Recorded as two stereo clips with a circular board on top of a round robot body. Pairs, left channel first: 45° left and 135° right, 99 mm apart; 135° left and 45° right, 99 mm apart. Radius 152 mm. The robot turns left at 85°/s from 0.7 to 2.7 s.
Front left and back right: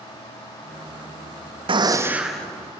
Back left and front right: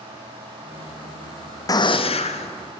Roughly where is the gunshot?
Behind.